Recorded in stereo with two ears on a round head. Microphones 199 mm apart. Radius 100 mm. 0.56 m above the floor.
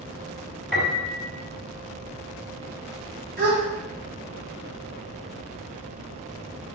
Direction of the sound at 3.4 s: 45° right (ahead or behind).